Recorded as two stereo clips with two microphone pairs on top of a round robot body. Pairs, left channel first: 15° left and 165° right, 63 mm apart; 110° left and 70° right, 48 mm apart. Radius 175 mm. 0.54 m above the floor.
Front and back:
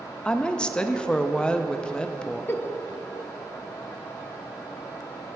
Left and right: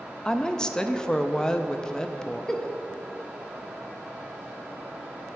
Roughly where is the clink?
No clink in this recording.